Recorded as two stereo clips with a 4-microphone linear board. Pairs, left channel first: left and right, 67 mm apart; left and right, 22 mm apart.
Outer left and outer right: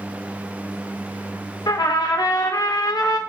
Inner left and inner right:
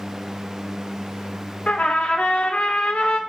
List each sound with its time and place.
1.7 s a trumpet: 80° left, 0.6 m